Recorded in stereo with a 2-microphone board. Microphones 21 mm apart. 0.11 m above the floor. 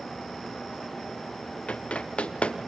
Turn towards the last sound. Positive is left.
turn(degrees=75)  # may be behind; listen again after turning